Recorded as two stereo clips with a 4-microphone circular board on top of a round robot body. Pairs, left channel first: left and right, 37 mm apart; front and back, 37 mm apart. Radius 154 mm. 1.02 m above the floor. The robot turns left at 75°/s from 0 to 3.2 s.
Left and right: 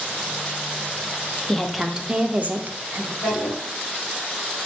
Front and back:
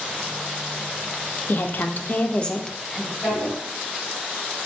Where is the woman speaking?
15° left, 0.5 m; by 3.1 s 110° right, 0.5 m.